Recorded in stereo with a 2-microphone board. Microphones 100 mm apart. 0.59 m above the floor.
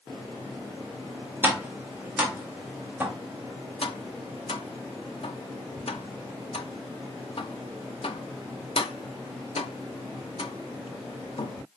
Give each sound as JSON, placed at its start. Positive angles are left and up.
{"t": 1.4, "sound": "tapping", "side_deg": -15, "distance_m": 1.0}
{"t": 3.8, "sound": "tapping", "side_deg": 60, "distance_m": 0.5}